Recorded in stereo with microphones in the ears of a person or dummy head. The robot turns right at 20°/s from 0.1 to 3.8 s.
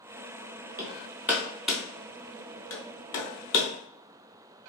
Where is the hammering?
15° right (ahead or behind), 0.7 m; by 3.7 s 35° left (ahead or behind), 0.7 m.